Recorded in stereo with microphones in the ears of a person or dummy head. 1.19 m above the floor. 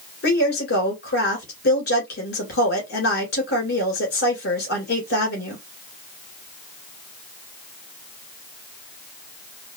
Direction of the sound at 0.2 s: 50° left (ahead or behind).